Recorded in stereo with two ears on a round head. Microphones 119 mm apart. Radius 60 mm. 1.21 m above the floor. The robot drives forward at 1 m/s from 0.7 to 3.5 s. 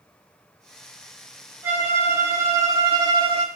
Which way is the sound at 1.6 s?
20° right (ahead or behind).